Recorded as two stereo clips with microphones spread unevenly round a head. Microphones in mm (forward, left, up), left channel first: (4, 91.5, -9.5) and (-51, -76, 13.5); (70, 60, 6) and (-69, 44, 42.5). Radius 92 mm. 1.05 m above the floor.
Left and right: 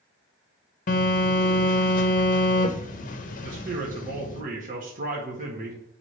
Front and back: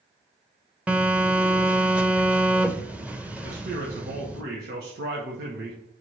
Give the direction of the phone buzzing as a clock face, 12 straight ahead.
9 o'clock.